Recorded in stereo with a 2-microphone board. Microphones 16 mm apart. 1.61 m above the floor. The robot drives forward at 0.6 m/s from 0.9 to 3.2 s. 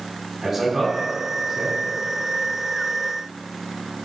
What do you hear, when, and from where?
0.4 s a man speaking: 25° right (ahead or behind), 4.5 m; by 1.8 s 30° right (ahead or behind), 4 m